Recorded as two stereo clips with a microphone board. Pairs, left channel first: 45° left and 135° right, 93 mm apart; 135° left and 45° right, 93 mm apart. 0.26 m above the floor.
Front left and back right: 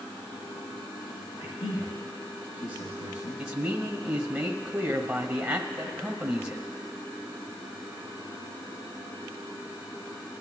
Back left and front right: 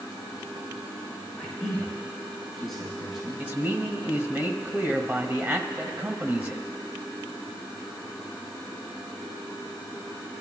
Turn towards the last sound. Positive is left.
turn(degrees=-80)